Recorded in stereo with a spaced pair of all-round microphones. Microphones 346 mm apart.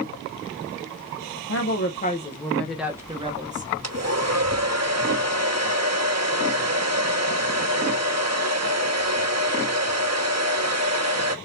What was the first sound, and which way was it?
A woman speaking, 45° left (ahead or behind).